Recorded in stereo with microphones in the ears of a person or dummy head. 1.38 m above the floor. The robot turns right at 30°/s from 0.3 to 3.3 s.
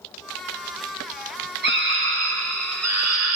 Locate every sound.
1.6 s a scream: 130° right, 1.5 m; by 3.4 s 80° right, 1.5 m